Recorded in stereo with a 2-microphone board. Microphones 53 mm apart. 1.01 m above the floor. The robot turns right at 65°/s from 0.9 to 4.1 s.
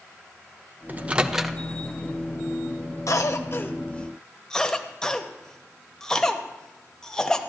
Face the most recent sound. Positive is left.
turn(degrees=10)  # may be behind; listen again after turning